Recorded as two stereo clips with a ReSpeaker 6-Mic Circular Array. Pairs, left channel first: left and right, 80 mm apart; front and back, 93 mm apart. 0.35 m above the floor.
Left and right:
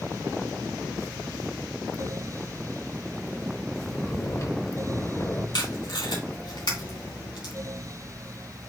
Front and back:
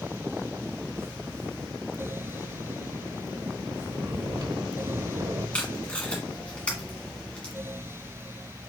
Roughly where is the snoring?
Behind left.